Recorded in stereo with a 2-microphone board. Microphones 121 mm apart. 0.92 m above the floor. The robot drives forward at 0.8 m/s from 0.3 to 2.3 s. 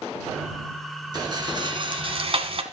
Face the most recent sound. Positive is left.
turn(degrees=-50)  # may be behind; listen again after turning